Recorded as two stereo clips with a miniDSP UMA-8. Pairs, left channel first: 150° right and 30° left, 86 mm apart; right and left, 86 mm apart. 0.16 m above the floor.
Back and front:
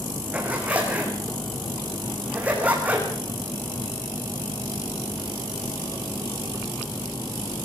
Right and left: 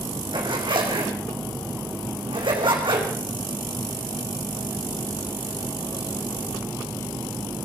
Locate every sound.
0.3 s a zipper: 105° left, 5.5 m